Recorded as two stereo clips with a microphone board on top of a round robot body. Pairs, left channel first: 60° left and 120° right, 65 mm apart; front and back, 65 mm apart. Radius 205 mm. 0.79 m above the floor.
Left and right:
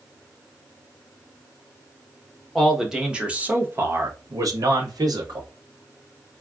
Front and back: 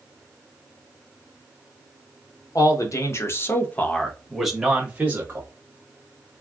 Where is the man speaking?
30° right, 1.2 m; by 5.5 s 120° right, 1.2 m.